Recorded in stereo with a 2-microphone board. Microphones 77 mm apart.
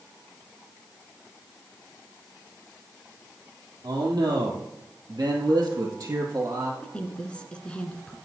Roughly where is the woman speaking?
Centre.